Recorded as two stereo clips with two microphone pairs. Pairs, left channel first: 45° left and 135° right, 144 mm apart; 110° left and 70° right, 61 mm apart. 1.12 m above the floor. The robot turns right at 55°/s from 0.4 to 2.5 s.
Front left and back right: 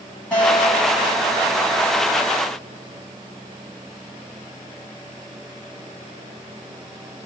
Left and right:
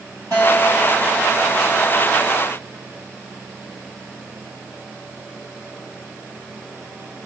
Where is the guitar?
35° right, 2 m; by 2.4 s 75° left, 2 m.